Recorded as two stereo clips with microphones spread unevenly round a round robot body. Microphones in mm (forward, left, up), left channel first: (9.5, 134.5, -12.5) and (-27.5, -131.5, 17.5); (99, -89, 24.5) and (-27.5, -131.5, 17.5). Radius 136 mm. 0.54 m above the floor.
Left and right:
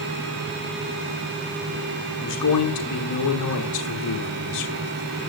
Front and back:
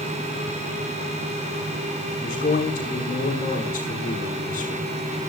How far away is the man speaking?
About 6.5 m.